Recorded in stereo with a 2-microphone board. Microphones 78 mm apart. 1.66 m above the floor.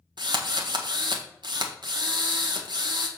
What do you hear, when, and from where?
0.2 s a drill: 70° right (ahead or behind), 1.3 m